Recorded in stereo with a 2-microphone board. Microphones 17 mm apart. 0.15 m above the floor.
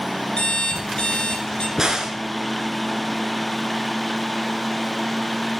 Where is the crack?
35° right (ahead or behind), 1.3 m.